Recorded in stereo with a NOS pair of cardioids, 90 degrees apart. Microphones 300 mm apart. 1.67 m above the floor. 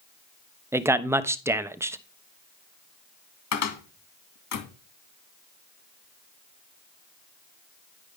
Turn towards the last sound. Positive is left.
turn(degrees=65)